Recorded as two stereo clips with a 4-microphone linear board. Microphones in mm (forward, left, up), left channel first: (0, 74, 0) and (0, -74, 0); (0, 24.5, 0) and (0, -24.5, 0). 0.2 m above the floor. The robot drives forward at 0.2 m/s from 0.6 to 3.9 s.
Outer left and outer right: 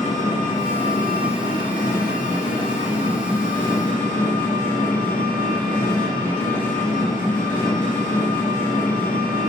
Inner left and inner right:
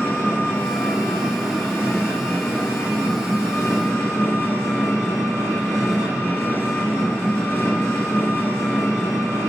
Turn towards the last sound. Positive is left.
turn(degrees=60)  # may be behind; listen again after turning